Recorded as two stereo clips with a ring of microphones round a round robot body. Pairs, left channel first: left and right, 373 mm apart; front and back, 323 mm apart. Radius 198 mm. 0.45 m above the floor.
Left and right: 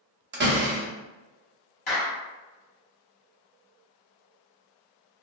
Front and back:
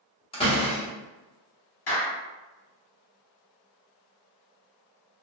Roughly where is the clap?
Ahead left.